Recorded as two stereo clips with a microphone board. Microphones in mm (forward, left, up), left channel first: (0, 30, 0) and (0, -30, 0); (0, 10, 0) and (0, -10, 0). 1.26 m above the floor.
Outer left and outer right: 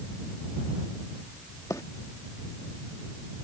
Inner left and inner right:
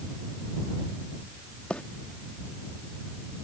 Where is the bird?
85° left.